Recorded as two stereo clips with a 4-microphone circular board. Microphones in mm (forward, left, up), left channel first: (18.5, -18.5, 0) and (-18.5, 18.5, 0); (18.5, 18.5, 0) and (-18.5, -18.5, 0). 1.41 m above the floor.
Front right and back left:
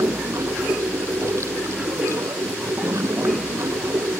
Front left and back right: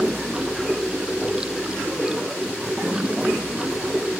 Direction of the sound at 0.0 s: 150° left.